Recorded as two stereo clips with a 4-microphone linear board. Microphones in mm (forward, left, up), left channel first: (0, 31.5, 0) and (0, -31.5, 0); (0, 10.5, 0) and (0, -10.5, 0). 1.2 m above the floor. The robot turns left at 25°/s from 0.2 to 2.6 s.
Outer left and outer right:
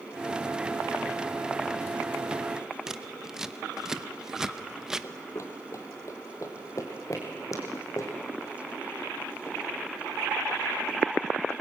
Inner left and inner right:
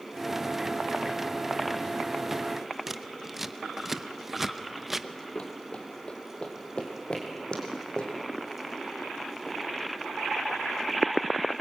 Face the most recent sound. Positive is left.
turn(degrees=55)  # may be behind; listen again after turning